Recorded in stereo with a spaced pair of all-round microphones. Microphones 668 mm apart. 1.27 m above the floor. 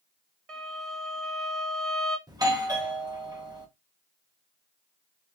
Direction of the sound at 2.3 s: 5° right (ahead or behind).